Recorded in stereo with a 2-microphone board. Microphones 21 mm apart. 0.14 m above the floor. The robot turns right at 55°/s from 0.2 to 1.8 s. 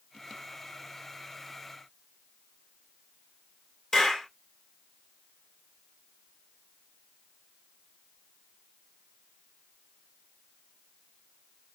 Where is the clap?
25° left (ahead or behind), 2 m.